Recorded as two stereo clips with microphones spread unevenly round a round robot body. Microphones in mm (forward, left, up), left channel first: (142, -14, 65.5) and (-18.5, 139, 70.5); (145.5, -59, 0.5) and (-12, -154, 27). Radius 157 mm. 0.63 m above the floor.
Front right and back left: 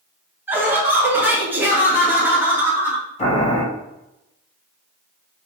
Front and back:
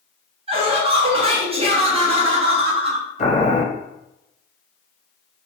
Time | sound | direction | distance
0.5 | laughter | 155° right | 0.8 m
3.2 | boiling | 10° left | 1.7 m